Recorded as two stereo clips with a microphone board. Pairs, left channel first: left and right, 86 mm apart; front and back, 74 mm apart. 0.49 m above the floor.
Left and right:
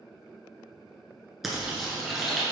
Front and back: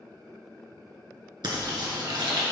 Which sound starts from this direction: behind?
Frying, at 1.4 s.